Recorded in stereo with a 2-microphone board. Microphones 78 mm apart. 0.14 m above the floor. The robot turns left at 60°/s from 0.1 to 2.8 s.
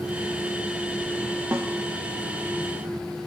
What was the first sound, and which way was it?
A snare drum, 30° right (ahead or behind).